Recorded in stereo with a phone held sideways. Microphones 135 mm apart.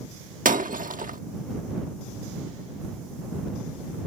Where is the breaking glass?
80° right.